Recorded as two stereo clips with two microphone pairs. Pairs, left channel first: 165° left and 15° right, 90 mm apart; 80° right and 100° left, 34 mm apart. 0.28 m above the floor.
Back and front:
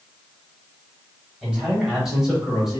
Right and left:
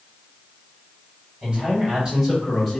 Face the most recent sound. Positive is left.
turn(degrees=-35)